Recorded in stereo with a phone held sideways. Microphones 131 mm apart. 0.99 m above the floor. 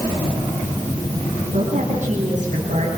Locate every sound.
1.5 s a woman speaking: 70° right (ahead or behind), 7 m